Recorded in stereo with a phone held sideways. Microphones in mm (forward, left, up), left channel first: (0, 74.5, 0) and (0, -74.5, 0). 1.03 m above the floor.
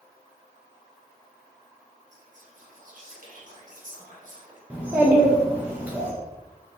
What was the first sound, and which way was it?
Whispering, 55° right (ahead or behind).